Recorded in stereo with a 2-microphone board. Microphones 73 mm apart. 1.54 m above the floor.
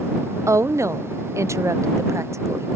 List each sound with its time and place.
0.5 s a woman speaking: 45° right (ahead or behind)